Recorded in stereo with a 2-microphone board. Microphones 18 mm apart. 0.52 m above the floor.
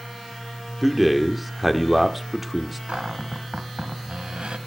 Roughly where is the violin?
I don't hear a violin.